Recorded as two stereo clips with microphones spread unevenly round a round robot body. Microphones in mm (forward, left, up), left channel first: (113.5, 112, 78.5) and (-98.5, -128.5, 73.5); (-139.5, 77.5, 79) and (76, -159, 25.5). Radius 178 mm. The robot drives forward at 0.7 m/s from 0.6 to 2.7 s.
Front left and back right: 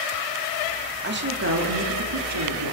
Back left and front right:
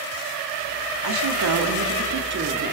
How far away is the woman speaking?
About 2 m.